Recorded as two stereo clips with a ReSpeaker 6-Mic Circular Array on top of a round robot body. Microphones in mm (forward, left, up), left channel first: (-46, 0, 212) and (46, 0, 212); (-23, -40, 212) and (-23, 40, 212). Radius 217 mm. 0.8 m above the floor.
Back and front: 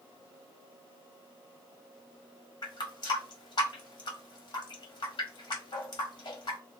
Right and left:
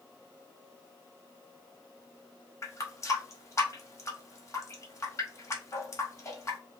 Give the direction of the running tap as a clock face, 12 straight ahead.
5 o'clock.